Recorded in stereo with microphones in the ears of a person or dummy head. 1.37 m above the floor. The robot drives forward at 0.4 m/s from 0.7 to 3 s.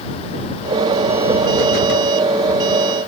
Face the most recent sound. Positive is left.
No sound to turn to.